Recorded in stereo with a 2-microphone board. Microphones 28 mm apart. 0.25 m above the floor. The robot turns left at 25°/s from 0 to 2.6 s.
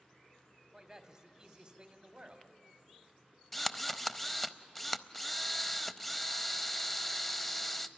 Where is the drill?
5° left (ahead or behind), 0.5 m.